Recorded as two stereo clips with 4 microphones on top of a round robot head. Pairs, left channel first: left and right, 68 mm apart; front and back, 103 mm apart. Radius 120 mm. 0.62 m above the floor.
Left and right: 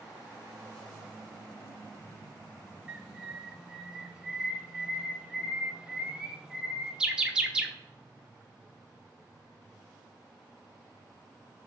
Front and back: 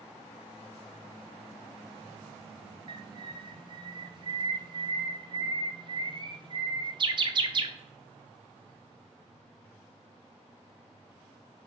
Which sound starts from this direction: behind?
A bird, at 2.9 s.